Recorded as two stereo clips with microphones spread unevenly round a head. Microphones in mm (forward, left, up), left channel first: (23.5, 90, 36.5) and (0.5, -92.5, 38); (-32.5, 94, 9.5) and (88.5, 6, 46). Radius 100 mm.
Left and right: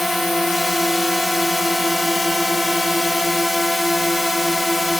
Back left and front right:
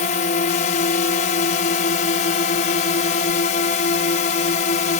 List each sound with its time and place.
0.0 s a drone: 175° left